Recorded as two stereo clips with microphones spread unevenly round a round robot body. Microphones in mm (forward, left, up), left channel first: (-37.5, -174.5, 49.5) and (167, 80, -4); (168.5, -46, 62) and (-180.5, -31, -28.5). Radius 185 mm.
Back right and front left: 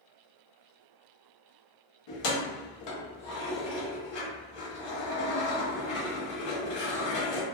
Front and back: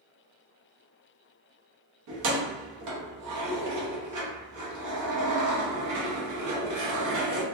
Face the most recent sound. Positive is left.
turn(degrees=-145)